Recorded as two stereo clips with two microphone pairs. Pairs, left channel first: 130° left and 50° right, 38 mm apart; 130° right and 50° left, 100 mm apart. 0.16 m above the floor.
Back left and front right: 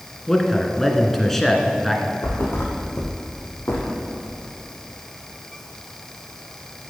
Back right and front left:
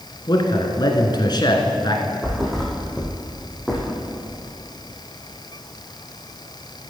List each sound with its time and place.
0.3 s a man speaking: 150° right, 1.7 m
2.2 s a thud: 145° left, 2.5 m